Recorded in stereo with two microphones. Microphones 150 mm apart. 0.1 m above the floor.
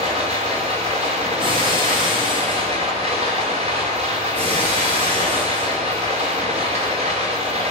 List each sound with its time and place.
0.0 s running water: 45° right (ahead or behind), 2.5 m
1.4 s breaking glass: 35° right (ahead or behind), 2.5 m
4.3 s breaking glass: 50° right (ahead or behind), 2.5 m